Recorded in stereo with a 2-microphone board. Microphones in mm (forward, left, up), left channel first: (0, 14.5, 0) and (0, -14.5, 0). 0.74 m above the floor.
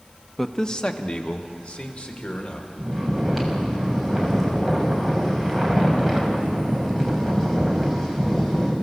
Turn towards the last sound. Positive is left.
turn(degrees=10)  # may be behind; listen again after turning